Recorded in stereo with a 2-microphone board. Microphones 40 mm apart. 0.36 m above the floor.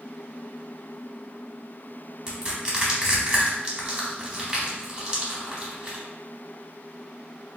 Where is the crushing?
20° right (ahead or behind), 1.2 m.